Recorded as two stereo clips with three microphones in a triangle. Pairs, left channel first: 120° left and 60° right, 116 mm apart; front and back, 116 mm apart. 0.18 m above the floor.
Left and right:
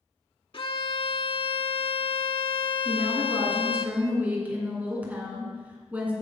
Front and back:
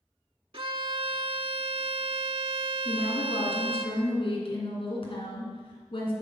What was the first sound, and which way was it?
A violin, 150° left.